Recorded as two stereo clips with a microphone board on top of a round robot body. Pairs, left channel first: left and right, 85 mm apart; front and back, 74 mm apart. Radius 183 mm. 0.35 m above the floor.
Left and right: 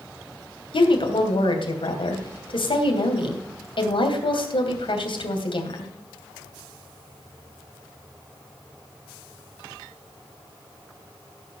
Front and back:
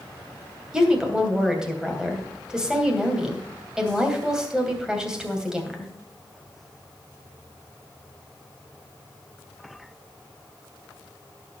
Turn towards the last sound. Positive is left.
turn(degrees=100)